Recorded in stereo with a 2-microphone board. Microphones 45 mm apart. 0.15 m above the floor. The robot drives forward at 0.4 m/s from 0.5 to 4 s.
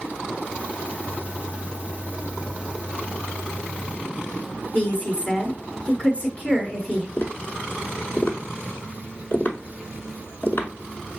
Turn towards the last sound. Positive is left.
turn(degrees=40)  # may be behind; listen again after turning